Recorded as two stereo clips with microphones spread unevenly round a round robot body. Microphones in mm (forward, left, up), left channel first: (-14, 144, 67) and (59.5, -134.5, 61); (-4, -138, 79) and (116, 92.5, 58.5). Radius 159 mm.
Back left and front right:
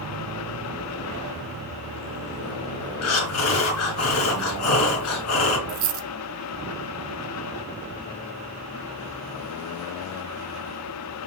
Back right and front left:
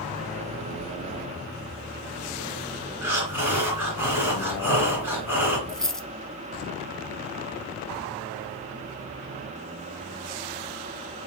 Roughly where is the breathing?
Behind left.